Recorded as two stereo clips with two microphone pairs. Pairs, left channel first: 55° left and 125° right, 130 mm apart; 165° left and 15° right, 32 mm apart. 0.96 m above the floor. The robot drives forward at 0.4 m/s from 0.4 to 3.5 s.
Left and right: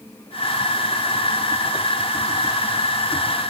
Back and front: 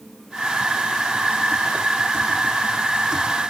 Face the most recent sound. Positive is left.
No sound to turn to.